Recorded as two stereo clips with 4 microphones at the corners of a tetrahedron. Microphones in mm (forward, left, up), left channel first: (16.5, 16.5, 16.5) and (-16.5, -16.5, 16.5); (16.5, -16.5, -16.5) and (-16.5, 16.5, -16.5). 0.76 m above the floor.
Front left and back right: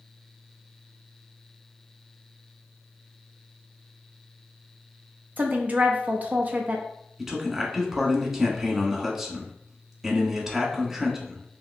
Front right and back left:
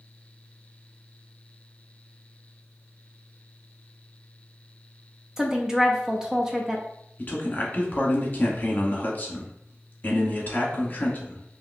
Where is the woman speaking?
155° right, 0.6 m.